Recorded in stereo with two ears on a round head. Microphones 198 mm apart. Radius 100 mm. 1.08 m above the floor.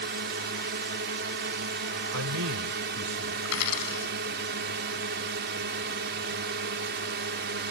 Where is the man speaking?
80° right.